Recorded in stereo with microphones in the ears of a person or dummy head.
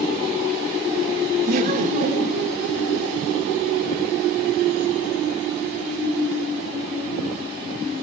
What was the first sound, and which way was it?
Laughter, 45° right (ahead or behind).